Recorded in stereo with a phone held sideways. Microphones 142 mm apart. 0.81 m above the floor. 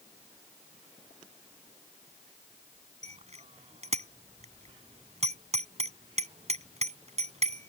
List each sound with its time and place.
3.0 s a bicycle bell: 50° right (ahead or behind)